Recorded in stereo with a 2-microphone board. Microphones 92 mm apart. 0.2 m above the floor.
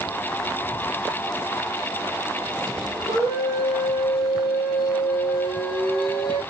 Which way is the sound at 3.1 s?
45° left (ahead or behind).